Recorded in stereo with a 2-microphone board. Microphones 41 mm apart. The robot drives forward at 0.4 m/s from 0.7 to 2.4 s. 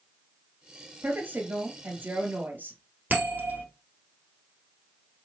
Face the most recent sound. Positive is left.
turn(degrees=-45)  # may be behind; listen again after turning